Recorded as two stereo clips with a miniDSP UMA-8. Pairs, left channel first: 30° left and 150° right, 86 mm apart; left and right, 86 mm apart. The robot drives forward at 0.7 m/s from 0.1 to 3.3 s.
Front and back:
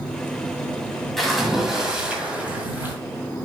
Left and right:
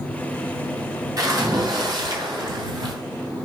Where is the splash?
55° right, 2.5 m; by 3.0 s 90° right, 2 m.